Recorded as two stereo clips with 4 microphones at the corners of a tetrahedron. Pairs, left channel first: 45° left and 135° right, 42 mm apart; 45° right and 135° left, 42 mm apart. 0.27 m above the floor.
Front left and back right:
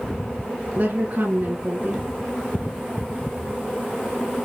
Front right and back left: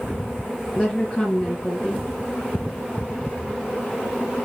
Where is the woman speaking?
105° right, 4 m.